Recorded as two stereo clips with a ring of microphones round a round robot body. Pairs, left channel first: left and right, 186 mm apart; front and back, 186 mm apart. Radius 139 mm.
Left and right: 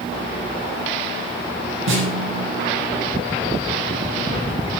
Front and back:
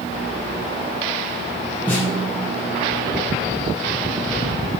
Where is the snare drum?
85° right, 3 m.